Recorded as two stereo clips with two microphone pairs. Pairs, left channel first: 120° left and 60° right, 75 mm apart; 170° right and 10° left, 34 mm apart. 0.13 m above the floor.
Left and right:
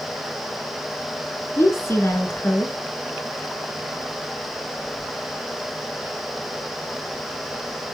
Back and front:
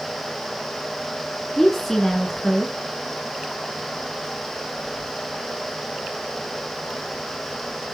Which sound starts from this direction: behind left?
A woman speaking, at 1.6 s.